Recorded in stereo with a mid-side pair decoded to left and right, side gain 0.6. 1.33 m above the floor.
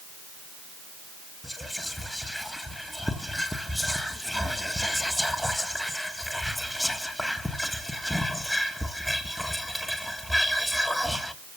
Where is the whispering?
5° left, 1.5 m.